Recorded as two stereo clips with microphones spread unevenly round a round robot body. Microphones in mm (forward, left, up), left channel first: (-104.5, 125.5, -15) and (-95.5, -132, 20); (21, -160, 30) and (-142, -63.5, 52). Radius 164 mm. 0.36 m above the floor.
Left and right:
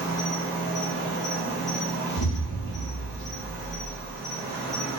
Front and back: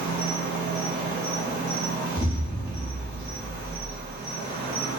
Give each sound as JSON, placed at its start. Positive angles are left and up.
{"t": 0.0, "sound": "an insect", "azimuth_deg": 175, "distance_m": 1.9}
{"t": 2.2, "sound": "an explosion", "azimuth_deg": 90, "distance_m": 0.9}